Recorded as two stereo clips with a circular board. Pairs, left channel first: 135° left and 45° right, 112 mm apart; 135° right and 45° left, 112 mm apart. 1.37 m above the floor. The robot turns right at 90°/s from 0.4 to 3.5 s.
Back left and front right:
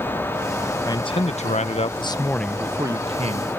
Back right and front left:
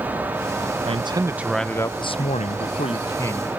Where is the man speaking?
75° left; by 3.5 s 50° right.